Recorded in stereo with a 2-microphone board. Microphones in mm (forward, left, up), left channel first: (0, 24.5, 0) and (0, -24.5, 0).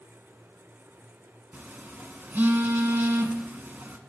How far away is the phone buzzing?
About 0.7 m.